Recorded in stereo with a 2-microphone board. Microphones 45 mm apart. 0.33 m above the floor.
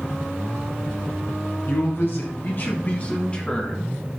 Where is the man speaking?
65° left (ahead or behind), 3 m; by 3.9 s 15° left (ahead or behind), 2.5 m.